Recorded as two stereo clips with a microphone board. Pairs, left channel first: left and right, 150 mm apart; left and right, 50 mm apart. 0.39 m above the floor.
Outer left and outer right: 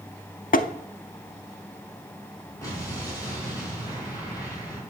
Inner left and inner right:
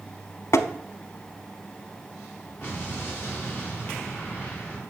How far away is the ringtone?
I don't hear a ringtone.